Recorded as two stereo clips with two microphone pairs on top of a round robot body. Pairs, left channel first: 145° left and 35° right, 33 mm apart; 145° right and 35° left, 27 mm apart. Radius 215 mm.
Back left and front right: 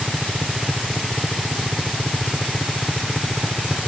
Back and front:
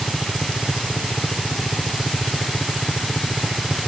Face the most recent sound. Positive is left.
turn(degrees=-145)